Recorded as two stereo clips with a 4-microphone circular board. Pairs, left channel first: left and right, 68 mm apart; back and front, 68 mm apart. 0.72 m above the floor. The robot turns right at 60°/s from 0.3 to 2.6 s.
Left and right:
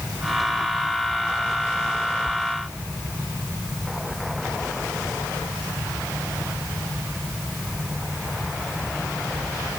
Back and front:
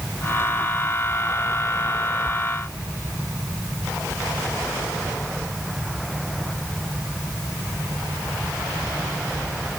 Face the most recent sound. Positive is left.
No sound to turn to.